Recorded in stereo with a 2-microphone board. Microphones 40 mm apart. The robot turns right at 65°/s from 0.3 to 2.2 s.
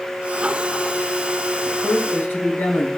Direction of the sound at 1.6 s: 45° left.